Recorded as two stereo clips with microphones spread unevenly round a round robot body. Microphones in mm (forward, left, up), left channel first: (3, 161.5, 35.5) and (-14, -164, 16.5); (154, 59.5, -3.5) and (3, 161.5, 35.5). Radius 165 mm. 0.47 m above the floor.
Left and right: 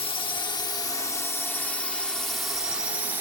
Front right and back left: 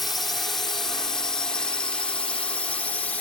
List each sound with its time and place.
0.0 s a drone: 30° left; by 3.2 s 30° right